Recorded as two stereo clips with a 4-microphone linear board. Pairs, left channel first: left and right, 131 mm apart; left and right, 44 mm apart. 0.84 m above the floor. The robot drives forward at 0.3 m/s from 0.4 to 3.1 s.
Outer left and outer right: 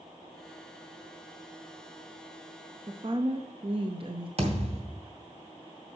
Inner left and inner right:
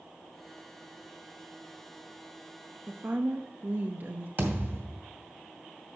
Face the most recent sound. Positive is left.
turn(degrees=-50)  # may be behind; listen again after turning